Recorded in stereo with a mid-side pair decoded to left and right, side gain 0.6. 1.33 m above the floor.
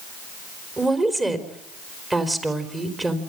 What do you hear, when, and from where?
0.8 s a woman speaking: 15° right, 4 m